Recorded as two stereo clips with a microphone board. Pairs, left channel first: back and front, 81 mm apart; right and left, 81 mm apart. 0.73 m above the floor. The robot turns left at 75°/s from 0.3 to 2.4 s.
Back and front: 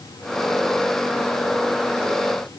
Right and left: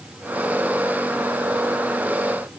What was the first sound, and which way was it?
Only background noise.